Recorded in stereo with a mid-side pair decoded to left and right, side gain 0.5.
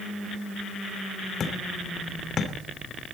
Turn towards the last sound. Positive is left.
turn(degrees=45)